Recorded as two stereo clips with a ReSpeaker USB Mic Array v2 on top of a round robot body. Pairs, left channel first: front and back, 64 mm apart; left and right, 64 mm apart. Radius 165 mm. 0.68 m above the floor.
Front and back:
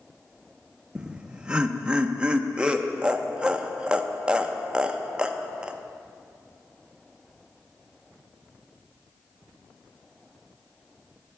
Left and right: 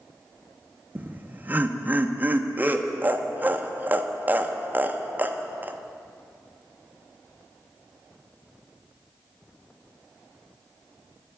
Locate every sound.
0.9 s laughter: 120° right, 0.7 m